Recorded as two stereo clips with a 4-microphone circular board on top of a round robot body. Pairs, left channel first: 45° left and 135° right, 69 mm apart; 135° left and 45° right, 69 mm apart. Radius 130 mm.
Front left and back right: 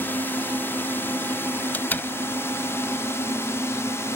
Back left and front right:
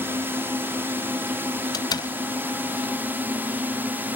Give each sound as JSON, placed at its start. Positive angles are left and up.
{"t": 0.0, "sound": "a drone", "azimuth_deg": -5}
{"t": 1.7, "sound": "a door slam", "azimuth_deg": 110}